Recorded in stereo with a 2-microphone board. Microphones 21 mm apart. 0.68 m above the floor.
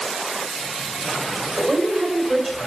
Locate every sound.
1.6 s a woman speaking: 35° right (ahead or behind), 3 m